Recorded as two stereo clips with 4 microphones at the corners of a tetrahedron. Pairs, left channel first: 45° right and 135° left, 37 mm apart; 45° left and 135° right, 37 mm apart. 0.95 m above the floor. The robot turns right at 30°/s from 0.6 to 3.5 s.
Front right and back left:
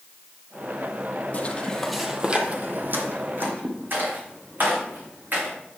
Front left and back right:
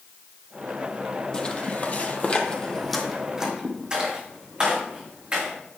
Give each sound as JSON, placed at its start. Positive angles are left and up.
{"t": 1.3, "sound": "footsteps", "azimuth_deg": -20, "distance_m": 1.3}